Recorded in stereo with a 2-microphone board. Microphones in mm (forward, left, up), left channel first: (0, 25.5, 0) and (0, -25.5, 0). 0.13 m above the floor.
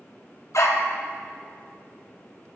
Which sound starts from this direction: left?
A dog barking, at 0.5 s.